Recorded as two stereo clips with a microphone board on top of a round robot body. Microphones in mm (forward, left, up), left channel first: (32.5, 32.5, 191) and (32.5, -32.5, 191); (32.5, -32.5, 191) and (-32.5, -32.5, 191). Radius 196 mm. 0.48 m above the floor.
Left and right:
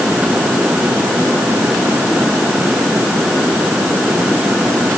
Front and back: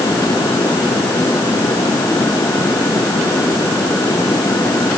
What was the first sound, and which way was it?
Only background noise.